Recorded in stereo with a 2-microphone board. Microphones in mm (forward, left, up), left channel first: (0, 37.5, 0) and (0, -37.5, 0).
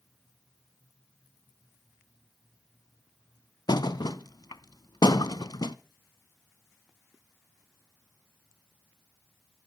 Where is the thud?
70° left (ahead or behind), 0.7 m.